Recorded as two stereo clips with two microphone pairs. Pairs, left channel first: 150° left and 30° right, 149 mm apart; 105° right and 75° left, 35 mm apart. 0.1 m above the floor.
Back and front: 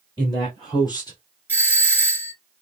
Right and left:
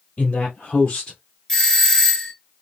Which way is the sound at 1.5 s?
145° right.